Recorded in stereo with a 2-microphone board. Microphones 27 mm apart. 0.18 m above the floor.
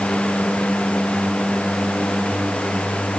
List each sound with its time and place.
Only background noise.